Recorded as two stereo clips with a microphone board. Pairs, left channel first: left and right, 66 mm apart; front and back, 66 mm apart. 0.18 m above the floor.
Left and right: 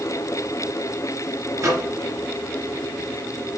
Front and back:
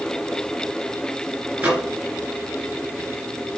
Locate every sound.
1.6 s a microwave: 115° right, 2.5 m